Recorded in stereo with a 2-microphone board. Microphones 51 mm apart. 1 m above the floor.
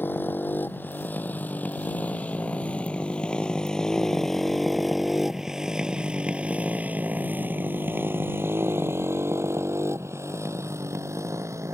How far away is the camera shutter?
I don't hear a camera shutter.